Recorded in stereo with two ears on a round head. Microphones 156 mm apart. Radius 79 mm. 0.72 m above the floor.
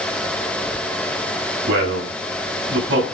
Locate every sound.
1.7 s a man speaking: 70° right (ahead or behind), 5 m; by 3.0 s 80° right, 6.5 m